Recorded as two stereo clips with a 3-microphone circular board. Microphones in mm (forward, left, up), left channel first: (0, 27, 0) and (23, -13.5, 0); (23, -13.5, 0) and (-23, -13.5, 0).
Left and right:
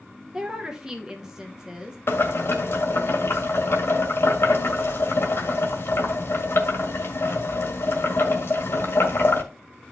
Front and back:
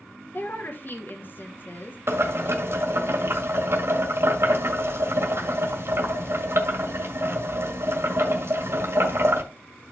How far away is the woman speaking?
About 1.0 m.